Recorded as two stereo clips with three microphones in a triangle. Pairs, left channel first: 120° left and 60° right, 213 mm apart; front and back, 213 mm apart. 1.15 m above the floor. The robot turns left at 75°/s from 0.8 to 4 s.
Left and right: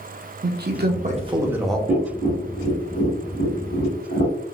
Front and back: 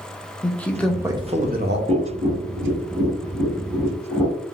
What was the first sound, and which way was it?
A man speaking, 85° right.